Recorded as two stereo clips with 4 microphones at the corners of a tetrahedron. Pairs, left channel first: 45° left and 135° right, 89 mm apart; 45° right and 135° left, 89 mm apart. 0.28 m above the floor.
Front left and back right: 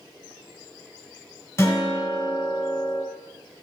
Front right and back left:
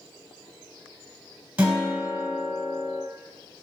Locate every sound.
1.6 s a guitar: 70° left, 1.3 m